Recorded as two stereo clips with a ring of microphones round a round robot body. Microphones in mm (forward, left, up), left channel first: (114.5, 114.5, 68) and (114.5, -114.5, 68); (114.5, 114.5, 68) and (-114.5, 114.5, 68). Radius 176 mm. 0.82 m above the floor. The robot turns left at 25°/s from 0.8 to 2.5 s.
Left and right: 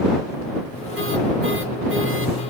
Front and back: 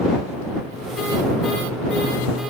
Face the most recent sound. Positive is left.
No sound to turn to.